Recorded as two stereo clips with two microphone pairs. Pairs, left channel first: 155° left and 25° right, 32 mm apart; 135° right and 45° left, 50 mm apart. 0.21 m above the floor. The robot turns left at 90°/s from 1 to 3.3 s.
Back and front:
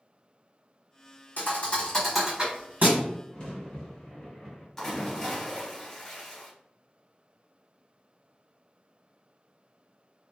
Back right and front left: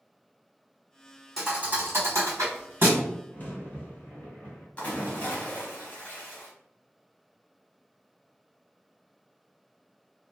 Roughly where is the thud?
Behind left.